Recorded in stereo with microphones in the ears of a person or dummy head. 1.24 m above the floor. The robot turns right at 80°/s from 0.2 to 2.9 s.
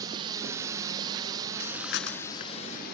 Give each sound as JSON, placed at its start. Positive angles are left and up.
{"t": 0.0, "sound": "a drone", "side_deg": -20}
{"t": 1.6, "sound": "breathing", "azimuth_deg": 65}